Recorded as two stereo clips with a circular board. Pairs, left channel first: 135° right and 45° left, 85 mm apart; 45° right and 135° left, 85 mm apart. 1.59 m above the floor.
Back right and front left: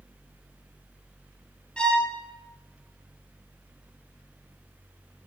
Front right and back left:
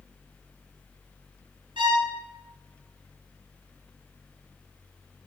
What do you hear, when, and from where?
1.8 s a violin: 150° left, 2 m